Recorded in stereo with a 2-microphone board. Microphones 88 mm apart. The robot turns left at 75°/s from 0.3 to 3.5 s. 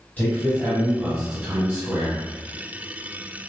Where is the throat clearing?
No throat clearing in this recording.